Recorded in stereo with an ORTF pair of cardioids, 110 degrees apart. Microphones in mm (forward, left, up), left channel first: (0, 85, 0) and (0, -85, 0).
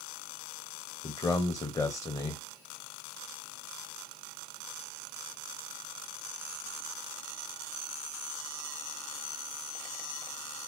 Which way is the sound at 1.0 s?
20° left.